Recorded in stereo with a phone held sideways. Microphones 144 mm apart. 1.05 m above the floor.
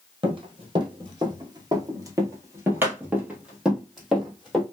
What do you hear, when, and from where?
0.2 s running footsteps: 35° right (ahead or behind), 1.4 m; by 4.6 s centre (ahead or behind), 1.8 m